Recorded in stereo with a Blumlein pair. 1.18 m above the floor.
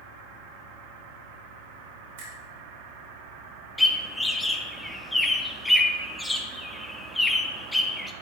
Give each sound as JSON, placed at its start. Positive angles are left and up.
{"t": 2.2, "sound": "a finger snap", "azimuth_deg": -60, "distance_m": 2.5}
{"t": 3.8, "sound": "a bird", "azimuth_deg": 5, "distance_m": 0.6}